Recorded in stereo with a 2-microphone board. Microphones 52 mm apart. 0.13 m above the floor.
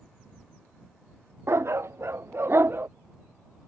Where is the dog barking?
55° right (ahead or behind); by 2.9 s 45° right (ahead or behind).